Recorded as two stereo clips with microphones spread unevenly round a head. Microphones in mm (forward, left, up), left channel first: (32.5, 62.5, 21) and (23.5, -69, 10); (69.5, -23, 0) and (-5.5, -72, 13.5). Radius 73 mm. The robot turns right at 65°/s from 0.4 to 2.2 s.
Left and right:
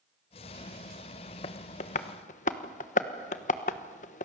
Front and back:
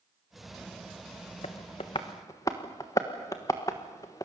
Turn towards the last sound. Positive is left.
turn(degrees=100)